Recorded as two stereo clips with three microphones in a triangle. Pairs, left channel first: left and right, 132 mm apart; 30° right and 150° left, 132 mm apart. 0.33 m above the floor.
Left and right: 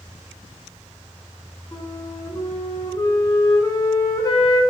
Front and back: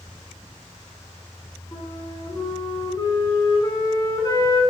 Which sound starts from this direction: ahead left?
A flute, at 1.7 s.